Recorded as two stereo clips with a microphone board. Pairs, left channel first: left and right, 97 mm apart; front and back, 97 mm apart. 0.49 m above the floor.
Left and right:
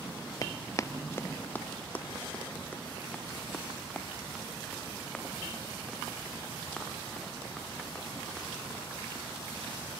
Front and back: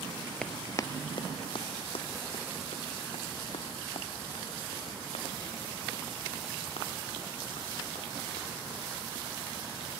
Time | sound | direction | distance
0.4 | running footsteps | 75° left | 0.5 m